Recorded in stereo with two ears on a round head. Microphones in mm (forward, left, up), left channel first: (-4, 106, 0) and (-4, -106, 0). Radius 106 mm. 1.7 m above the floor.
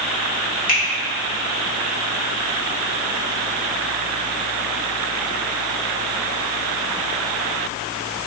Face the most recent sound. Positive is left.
turn(degrees=40)  # may be behind; listen again after turning